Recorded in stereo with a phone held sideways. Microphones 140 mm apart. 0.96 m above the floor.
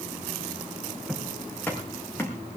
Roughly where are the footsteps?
Centre.